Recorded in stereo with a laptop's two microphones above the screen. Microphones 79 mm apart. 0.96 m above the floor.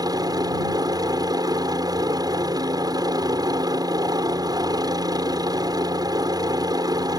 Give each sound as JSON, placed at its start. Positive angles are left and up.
{"t": 0.0, "sound": "a helicopter", "side_deg": -55}